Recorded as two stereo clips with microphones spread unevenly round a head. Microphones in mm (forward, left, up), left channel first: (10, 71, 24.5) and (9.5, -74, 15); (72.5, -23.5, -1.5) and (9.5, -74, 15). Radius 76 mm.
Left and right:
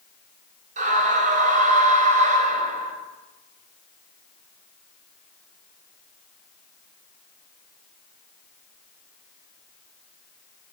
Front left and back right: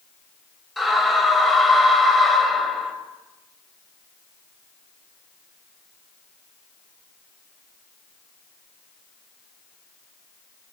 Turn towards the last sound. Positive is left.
turn(degrees=-55)